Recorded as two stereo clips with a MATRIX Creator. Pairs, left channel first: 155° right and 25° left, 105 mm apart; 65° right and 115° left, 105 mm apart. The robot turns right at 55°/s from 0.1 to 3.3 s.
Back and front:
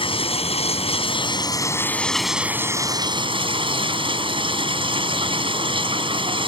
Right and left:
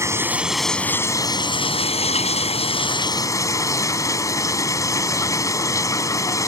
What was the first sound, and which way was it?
Running water, 175° left.